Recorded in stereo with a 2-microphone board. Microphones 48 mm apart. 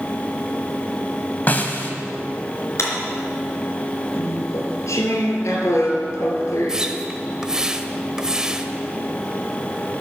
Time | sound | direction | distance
1.5 | a snare drum | 40° left (ahead or behind) | 1.5 m
2.8 | a clap | 65° left (ahead or behind) | 3.5 m
4.1 | chewing | 80° left | 3 m
6.7 | a splash | 15° right (ahead or behind) | 0.9 m